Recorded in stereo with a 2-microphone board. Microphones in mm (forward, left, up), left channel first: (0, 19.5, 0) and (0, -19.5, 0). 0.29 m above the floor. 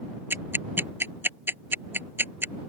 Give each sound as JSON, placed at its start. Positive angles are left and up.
{"t": 0.3, "sound": "ticking", "side_deg": -60}